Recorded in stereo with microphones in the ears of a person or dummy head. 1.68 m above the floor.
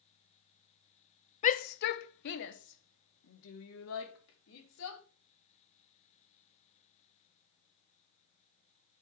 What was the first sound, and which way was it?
A shout, 40° left (ahead or behind).